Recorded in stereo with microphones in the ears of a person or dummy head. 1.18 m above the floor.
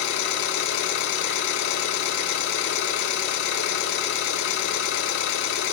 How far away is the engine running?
About 4.5 m.